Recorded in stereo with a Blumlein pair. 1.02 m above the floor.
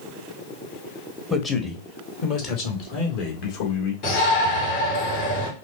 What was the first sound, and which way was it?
A man speaking, 15° left.